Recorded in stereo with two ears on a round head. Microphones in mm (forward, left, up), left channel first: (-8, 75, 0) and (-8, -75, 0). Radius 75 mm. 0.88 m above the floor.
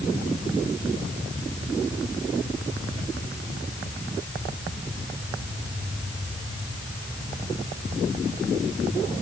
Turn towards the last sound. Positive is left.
No sound to turn to.